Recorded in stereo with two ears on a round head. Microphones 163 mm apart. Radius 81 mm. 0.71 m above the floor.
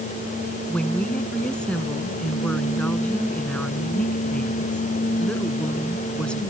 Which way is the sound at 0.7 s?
5° left (ahead or behind).